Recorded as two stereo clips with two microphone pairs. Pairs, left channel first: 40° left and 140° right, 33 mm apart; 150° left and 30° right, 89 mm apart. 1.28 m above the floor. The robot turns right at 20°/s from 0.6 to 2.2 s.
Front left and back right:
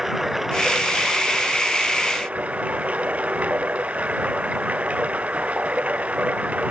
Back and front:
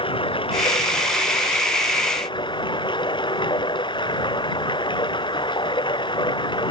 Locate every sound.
0.0 s running water: 145° left; by 6.7 s 175° left